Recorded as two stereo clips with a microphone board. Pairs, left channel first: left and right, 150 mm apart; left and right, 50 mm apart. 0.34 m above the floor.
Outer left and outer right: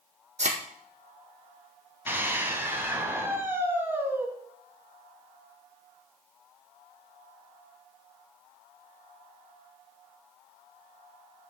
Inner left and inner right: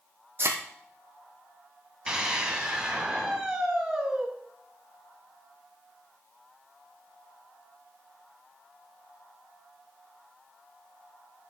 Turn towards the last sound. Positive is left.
turn(degrees=-15)  # may be behind; listen again after turning